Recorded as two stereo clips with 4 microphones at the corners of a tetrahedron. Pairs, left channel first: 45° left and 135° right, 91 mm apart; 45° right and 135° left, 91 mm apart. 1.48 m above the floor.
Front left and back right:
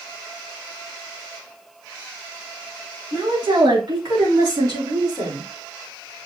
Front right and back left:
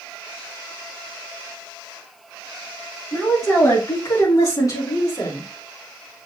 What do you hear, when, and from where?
3.1 s a woman speaking: 105° right, 2.5 m; by 5.5 s 90° right, 5 m